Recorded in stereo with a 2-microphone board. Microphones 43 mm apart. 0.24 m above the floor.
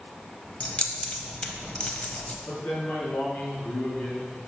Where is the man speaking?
45° left (ahead or behind), 2.5 m.